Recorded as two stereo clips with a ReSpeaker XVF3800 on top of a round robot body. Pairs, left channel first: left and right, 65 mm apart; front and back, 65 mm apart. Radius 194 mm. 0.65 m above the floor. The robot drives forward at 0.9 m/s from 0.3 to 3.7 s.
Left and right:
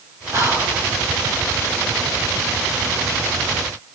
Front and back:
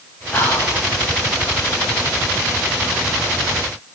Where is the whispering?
55° right, 7 m; by 0.8 s 60° right, 7 m.